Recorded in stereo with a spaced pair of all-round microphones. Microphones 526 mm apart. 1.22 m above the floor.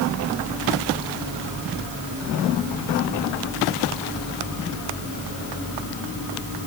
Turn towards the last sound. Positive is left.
No sound to turn to.